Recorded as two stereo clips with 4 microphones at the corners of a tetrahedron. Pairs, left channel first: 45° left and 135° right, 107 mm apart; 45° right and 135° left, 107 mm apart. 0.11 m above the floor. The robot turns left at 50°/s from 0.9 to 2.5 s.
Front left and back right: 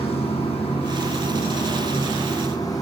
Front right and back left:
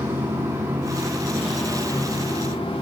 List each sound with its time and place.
0.0 s running water: 65° left, 7.5 m; by 2.8 s 15° right, 7.5 m